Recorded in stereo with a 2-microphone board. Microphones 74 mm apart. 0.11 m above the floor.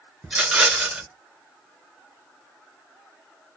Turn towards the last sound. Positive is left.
turn(degrees=-5)  # may be behind; listen again after turning